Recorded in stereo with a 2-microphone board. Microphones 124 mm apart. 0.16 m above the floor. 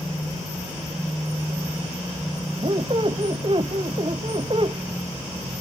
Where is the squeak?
45° right (ahead or behind), 1.0 m.